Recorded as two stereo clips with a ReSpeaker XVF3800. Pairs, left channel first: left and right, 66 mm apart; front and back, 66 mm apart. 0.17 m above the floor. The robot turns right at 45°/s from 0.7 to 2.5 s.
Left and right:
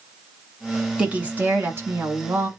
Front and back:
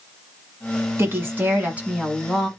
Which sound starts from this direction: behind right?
A woman speaking, at 1.0 s.